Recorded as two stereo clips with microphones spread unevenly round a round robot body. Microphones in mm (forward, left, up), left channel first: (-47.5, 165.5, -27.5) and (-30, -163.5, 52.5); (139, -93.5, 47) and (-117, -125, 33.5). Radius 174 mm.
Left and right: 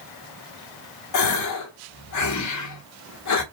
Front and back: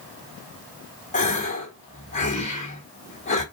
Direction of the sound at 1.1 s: 75° left.